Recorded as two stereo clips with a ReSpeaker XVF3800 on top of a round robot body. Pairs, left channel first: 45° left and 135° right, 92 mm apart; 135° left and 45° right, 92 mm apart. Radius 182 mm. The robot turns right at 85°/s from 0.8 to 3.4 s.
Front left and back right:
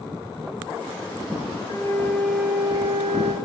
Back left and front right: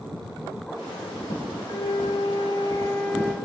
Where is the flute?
85° left, 1.4 m; by 3.4 s 135° right, 1.4 m.